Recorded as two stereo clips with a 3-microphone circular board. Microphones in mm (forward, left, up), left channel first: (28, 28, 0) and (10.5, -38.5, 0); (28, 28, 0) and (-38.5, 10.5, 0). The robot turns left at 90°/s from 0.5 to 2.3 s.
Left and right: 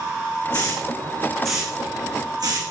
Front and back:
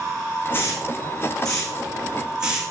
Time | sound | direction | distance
0.5 | a hiss | 75° left | 4 m